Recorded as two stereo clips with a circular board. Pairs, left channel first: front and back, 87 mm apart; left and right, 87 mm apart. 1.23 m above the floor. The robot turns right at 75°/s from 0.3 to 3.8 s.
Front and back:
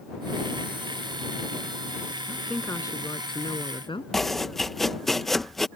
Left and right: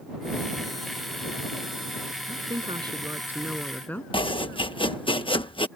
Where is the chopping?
85° left.